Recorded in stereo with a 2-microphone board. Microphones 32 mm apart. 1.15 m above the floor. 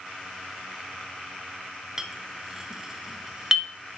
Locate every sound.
2.0 s a clink: 10° right (ahead or behind), 0.7 m